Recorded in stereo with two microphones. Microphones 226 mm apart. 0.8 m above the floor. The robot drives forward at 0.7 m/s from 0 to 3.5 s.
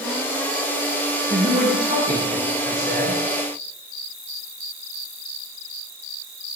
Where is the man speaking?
30° right (ahead or behind), 7.5 m; by 3.2 s 40° right (ahead or behind), 6.5 m.